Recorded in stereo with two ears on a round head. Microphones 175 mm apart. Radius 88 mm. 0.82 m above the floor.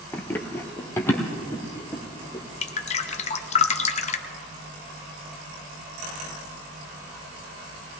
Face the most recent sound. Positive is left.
turn(degrees=35)  # may be behind; listen again after turning